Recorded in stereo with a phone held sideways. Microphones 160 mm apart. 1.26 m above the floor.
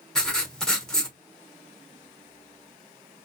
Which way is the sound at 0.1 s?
5° left (ahead or behind).